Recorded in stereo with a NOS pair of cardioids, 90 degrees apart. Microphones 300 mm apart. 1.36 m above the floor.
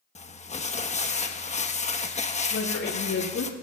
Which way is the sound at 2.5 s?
50° left.